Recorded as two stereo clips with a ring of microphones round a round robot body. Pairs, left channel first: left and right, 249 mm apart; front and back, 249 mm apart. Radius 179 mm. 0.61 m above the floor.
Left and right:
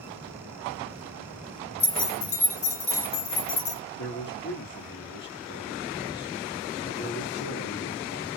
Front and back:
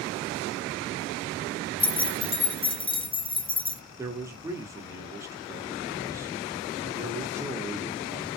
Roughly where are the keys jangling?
Left.